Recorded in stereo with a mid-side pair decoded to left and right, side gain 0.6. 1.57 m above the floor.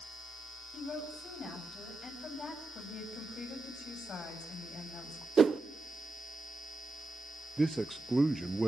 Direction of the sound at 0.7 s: 35° left.